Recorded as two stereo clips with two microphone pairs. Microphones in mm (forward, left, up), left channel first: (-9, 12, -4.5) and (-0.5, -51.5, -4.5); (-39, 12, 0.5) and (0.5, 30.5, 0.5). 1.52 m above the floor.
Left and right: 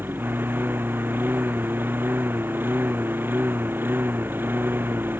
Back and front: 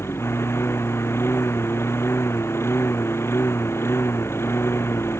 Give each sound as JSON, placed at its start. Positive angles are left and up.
{"t": 0.0, "sound": "a lawn mower", "azimuth_deg": -140}